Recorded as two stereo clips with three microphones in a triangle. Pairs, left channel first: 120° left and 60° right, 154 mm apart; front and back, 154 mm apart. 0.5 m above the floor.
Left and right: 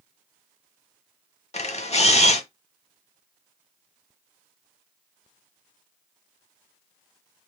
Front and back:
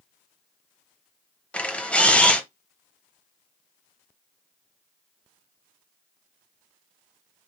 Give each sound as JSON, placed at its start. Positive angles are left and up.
{"t": 1.5, "sound": "a camera shutter", "azimuth_deg": 85, "distance_m": 0.6}